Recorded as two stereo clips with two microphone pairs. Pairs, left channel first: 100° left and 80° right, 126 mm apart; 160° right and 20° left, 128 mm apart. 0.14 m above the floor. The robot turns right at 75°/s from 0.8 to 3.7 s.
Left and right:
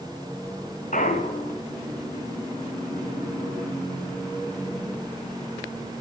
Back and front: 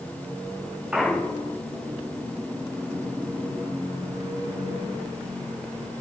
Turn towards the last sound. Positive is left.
turn(degrees=-50)